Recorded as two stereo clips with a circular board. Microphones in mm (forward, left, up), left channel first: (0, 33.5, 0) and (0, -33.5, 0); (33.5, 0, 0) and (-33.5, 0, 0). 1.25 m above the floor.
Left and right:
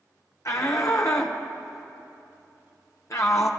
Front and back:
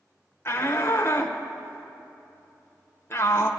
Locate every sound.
0.5 s a shout: 50° left, 0.9 m